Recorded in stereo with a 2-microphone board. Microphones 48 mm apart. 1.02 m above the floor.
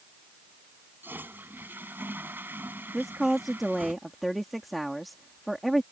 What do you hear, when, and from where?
1.0 s a toilet flushing: 50° right (ahead or behind)
2.9 s a woman speaking: centre (ahead or behind)